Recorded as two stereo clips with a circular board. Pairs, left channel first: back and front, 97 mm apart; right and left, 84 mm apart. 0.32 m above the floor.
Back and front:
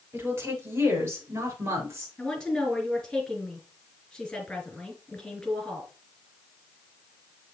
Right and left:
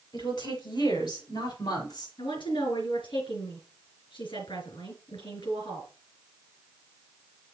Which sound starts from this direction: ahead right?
A woman speaking, at 0.1 s.